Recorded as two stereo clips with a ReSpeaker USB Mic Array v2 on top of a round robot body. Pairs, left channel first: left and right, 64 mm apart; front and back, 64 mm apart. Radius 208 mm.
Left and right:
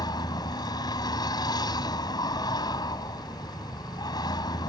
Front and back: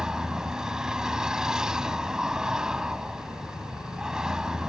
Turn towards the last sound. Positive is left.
turn(degrees=100)